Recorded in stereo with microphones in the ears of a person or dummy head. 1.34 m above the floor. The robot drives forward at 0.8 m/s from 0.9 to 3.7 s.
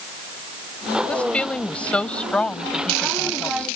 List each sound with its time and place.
1.1 s a woman speaking: 5° left (ahead or behind)